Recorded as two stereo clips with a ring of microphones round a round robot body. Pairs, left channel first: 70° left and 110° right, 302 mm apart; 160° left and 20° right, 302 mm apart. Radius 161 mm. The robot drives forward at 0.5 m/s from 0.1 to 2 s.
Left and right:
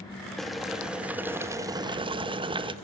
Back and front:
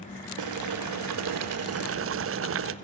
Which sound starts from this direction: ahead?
Boiling, at 0.4 s.